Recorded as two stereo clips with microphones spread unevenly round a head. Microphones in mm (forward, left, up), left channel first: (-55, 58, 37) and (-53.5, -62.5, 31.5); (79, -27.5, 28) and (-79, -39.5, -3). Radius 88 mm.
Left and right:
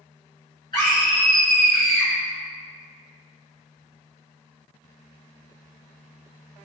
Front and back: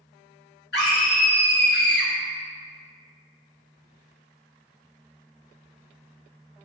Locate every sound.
0.7 s a scream: 25° left, 1.1 m